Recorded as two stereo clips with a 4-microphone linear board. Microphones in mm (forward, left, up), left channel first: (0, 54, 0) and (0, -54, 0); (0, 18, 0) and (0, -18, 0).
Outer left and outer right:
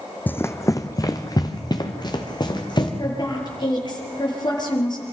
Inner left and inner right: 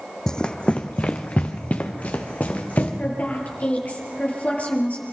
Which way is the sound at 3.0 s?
40° left (ahead or behind).